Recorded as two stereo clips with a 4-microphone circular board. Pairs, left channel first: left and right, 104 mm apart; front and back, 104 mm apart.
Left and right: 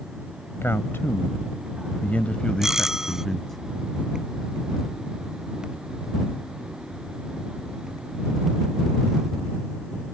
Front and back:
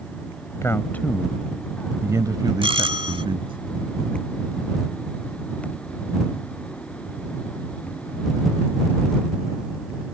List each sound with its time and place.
0.6 s a man speaking: 40° left; by 3.6 s 175° left
2.6 s a doorbell: 175° right